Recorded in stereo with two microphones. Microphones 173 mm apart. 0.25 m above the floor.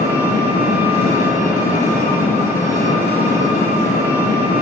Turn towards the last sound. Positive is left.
turn(degrees=55)  # may be behind; listen again after turning